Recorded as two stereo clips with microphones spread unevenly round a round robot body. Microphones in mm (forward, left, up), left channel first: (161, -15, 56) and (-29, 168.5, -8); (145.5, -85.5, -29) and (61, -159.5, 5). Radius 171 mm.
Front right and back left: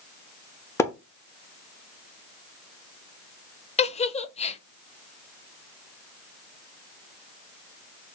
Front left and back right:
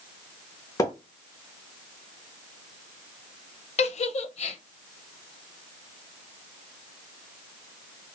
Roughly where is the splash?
Ahead left.